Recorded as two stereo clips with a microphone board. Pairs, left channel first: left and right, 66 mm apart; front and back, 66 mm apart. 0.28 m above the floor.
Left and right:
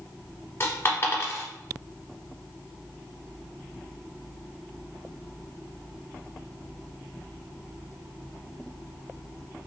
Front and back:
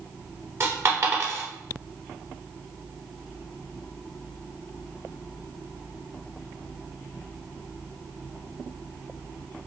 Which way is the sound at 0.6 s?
135° left.